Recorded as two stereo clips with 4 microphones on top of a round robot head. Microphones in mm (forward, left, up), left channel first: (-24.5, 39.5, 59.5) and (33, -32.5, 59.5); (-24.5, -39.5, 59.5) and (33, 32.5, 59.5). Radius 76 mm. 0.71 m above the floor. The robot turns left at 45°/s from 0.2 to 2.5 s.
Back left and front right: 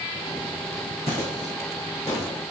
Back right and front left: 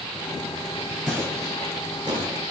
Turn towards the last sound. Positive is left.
turn(degrees=60)